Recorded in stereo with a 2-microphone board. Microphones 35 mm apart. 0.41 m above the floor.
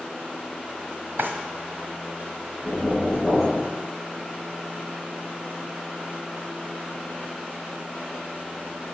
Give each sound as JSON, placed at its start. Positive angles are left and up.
{"t": 1.2, "sound": "a drawer", "side_deg": -70, "distance_m": 1.5}
{"t": 2.6, "sound": "knocking", "side_deg": -5, "distance_m": 4.5}